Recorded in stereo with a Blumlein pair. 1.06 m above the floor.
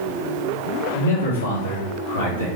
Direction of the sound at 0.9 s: 65° left.